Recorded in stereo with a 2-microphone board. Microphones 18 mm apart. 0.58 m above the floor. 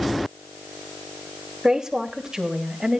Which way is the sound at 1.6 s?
40° right (ahead or behind).